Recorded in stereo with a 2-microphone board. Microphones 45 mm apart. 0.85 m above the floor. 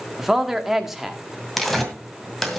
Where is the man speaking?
10° right (ahead or behind), 1.6 m.